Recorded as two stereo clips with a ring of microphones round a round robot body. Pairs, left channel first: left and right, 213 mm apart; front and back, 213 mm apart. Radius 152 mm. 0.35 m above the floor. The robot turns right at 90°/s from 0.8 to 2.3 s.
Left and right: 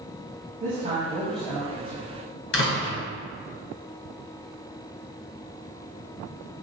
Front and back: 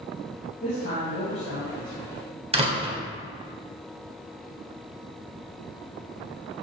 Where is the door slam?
120° left, 2 m.